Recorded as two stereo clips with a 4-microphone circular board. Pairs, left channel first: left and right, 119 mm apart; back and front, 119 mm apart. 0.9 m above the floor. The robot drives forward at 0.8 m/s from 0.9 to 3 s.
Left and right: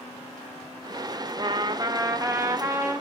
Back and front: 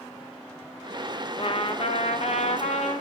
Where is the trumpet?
140° right, 1.5 m; by 3.0 s 160° right, 2.5 m.